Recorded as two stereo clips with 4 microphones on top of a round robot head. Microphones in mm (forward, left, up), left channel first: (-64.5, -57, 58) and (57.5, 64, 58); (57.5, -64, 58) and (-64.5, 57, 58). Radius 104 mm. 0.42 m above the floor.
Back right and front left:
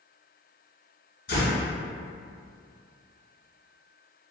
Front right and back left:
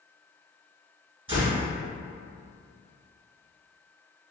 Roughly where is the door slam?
Behind.